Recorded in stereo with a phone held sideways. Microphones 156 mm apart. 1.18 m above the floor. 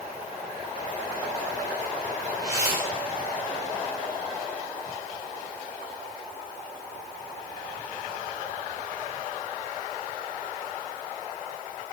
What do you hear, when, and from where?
2.4 s a whoosh: 20° right (ahead or behind), 7 m